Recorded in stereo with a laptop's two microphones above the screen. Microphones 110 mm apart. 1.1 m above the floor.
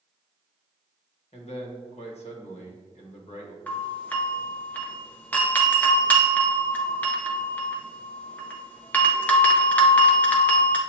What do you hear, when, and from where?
1.3 s a man speaking: 65° left (ahead or behind), 1.2 m
3.7 s a doorbell: 15° left (ahead or behind), 0.7 m